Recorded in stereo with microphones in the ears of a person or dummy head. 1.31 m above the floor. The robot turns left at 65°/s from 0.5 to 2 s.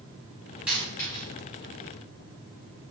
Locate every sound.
0.7 s a dropped coin: 5° right (ahead or behind), 1.2 m; by 1.2 s 20° left (ahead or behind), 1.2 m